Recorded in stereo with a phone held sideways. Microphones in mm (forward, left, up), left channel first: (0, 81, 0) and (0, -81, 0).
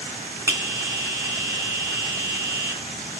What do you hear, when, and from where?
0.5 s a bell: 15° right (ahead or behind), 2.5 m